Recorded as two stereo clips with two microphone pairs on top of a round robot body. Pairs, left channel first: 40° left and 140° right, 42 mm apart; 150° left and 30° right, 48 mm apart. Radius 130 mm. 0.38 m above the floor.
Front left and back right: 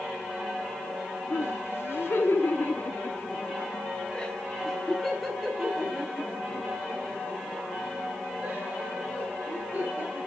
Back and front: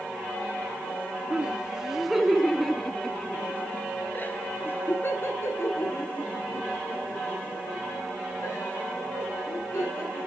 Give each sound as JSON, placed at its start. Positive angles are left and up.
{"t": 1.3, "sound": "laughter", "azimuth_deg": 40, "distance_m": 2.0}